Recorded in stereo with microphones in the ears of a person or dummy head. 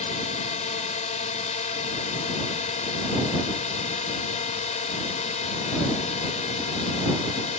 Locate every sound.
0.0 s a drone: 35° left (ahead or behind)